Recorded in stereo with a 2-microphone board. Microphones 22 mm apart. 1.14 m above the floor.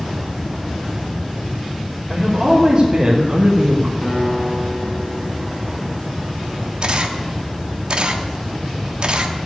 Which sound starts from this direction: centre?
A man speaking, at 2.1 s.